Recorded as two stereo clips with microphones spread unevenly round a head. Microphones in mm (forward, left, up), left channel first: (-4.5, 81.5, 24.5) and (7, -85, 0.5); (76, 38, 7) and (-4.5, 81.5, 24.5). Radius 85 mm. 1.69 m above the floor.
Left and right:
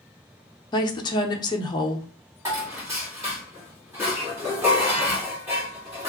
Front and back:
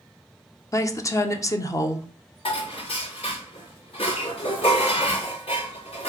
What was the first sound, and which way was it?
A woman speaking, 30° left.